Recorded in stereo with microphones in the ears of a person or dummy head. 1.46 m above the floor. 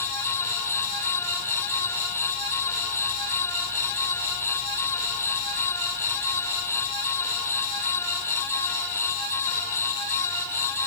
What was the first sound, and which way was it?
Only background noise.